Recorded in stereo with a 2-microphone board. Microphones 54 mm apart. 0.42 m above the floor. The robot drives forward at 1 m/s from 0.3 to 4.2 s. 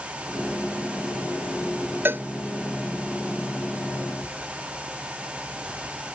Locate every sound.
2.0 s a cowbell: 40° right (ahead or behind)